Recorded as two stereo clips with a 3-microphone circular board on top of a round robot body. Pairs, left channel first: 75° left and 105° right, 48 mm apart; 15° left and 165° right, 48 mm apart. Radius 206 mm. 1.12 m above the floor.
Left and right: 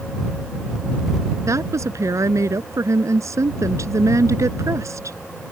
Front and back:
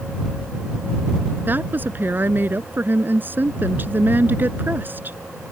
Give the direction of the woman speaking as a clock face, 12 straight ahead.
4 o'clock.